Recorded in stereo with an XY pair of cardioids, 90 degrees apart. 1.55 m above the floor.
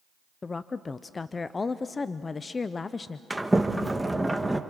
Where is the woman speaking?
35° left, 0.6 m.